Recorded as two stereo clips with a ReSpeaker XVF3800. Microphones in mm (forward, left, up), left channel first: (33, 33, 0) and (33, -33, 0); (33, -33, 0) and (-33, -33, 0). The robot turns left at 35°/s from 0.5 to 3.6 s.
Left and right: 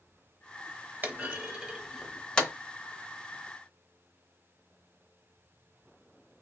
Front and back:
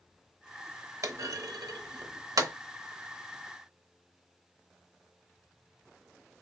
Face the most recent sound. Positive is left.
turn(degrees=125)